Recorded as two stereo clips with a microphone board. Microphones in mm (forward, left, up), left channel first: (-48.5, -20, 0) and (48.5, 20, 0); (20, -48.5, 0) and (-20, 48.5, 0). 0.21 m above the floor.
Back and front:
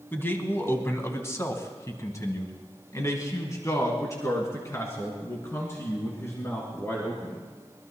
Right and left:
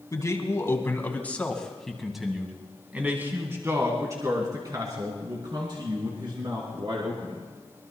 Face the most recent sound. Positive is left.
turn(degrees=140)